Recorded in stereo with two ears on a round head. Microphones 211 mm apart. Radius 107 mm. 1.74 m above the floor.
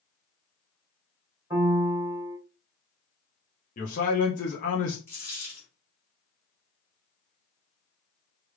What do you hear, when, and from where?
1.5 s a piano: 15° right (ahead or behind), 1.4 m
3.8 s a man speaking: 35° left (ahead or behind), 0.7 m
5.1 s a dropped coin: 10° left (ahead or behind), 1.4 m